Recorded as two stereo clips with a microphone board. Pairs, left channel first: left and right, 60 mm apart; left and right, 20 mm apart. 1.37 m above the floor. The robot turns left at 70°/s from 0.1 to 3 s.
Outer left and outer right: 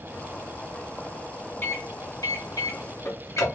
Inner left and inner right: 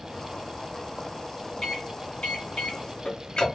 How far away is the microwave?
About 1.1 m.